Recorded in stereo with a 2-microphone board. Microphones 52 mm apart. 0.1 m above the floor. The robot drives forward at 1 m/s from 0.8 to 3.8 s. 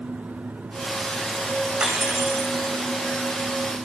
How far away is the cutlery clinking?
About 4 m.